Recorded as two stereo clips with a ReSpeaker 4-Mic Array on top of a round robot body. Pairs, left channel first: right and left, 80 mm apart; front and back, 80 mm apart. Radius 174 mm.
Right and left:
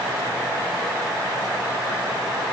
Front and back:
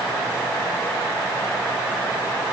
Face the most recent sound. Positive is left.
No sound to turn to.